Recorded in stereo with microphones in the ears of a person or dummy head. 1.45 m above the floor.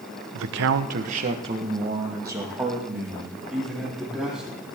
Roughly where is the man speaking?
Right.